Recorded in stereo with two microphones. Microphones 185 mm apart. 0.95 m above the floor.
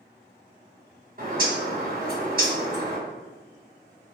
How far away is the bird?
About 1.1 m.